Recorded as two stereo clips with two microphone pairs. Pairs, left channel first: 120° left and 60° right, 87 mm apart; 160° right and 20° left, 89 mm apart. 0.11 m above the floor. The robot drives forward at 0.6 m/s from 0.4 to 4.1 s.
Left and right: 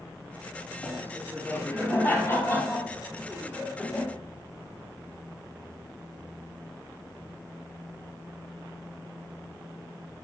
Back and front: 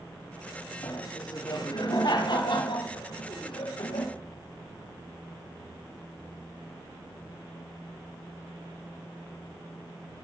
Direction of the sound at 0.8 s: 175° right.